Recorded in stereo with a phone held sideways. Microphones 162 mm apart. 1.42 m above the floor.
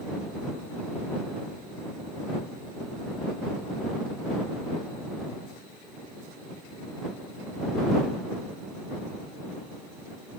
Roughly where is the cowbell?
No cowbell in this recording.